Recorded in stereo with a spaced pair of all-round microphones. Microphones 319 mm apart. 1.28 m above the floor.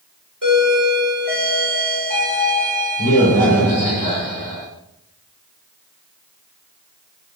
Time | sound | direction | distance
0.4 | a doorbell | 70° right (ahead or behind) | 5 m